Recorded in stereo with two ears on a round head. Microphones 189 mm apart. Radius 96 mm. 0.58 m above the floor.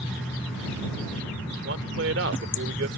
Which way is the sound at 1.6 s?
60° right (ahead or behind).